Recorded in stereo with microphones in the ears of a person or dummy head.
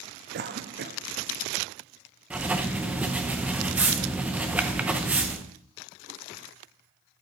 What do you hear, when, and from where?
0.3 s a cough: 50° right (ahead or behind), 0.7 m
2.3 s writing: 5° right (ahead or behind), 0.6 m